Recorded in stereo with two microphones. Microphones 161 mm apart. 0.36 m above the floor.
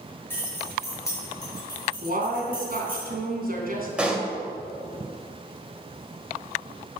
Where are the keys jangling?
15° left (ahead or behind), 5 m; by 3.0 s 35° left (ahead or behind), 6 m.